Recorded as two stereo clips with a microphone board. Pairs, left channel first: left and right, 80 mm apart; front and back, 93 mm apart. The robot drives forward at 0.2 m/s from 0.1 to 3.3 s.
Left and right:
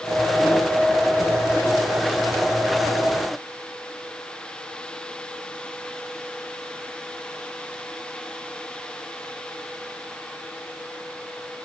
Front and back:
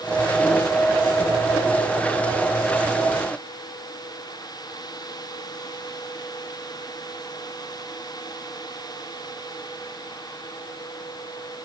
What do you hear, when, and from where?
Only background noise.